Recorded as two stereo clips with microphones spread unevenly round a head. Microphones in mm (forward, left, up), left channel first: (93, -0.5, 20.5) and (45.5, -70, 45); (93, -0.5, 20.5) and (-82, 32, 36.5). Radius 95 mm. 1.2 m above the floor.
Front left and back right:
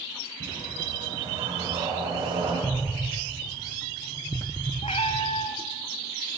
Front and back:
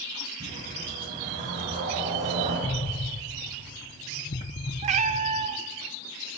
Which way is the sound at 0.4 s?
135° right.